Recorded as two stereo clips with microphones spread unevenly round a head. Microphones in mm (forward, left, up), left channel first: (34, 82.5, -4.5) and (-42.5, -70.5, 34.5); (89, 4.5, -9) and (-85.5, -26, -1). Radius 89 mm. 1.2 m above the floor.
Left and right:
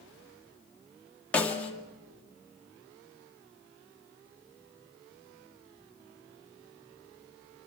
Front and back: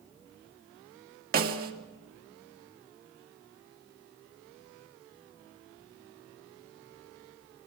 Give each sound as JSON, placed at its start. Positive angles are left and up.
{"t": 1.3, "sound": "a snare drum", "azimuth_deg": 145, "distance_m": 2.0}